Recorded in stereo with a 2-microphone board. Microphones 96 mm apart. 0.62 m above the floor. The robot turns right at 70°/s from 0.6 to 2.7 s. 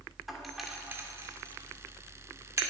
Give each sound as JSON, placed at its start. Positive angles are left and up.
{"t": 0.3, "sound": "a doorbell", "side_deg": 0, "distance_m": 2.0}